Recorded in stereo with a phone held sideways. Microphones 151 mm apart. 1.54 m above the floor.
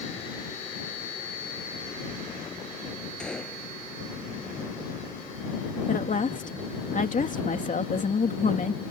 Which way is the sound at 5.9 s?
55° left (ahead or behind).